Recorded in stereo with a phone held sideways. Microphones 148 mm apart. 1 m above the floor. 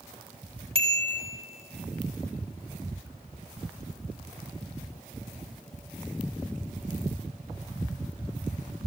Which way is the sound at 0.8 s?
40° right (ahead or behind).